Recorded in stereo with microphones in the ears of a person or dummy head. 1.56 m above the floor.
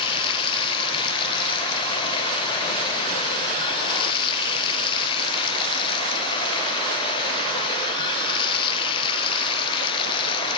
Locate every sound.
0.0 s running water: 30° left (ahead or behind), 0.8 m